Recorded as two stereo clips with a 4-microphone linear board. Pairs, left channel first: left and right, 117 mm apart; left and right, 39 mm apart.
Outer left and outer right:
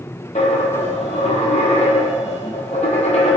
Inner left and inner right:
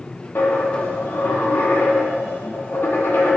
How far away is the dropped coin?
About 0.9 m.